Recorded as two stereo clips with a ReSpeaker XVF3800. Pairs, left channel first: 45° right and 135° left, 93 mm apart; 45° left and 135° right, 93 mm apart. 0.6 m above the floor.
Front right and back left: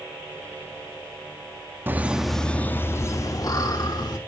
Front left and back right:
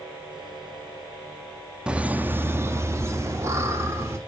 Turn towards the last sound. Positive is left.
turn(degrees=-80)